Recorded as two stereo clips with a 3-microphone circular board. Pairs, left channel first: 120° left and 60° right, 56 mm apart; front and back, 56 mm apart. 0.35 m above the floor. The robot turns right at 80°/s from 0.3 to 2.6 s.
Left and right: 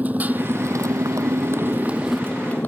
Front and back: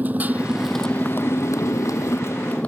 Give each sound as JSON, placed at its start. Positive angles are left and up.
{"t": 0.0, "sound": "a motorcycle", "azimuth_deg": -120}